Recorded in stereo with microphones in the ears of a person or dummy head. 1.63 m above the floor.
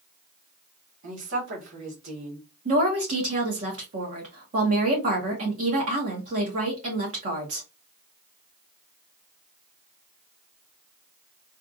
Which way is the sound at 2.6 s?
45° right (ahead or behind).